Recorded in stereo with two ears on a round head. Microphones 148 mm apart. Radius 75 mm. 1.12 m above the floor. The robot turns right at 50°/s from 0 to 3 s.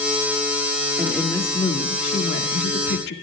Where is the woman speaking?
10° right, 2 m; by 3.1 s 95° left, 2 m.